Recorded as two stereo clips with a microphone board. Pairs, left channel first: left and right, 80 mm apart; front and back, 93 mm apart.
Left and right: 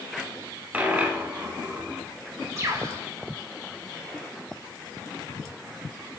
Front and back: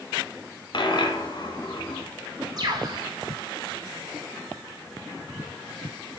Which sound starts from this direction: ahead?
A dropped coin, at 0.7 s.